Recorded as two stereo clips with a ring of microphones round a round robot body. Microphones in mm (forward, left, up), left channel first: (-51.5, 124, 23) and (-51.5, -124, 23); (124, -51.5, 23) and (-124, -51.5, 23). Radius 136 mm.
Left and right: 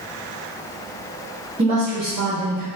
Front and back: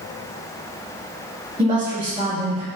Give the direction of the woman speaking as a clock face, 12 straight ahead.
4 o'clock.